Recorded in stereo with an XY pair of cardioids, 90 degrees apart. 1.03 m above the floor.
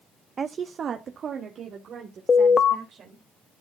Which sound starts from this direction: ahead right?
A woman speaking, at 0.4 s.